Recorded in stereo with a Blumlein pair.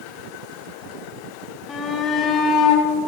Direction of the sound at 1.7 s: 15° left.